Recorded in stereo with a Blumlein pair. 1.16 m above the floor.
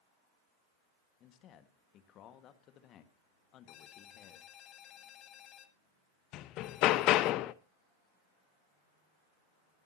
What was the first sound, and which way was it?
A man speaking, 35° left.